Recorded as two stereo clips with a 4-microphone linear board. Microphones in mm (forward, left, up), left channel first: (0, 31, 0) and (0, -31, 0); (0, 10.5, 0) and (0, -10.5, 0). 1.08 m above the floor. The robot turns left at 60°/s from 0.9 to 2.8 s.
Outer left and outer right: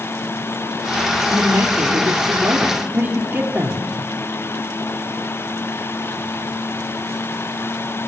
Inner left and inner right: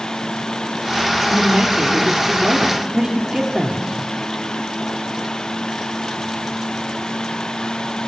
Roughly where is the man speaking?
Ahead right.